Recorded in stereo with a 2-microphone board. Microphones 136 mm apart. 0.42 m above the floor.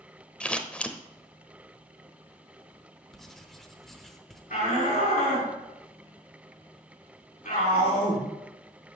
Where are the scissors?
10° left (ahead or behind), 0.7 m.